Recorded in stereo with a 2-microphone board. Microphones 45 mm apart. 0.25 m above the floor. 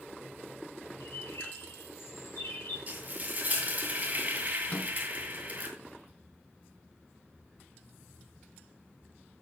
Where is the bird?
65° left (ahead or behind), 6 m.